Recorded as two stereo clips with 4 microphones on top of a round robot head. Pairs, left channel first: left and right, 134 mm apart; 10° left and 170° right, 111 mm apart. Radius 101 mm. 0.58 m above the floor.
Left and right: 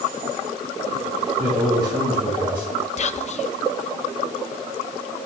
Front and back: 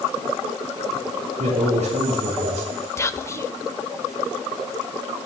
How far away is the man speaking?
About 6 m.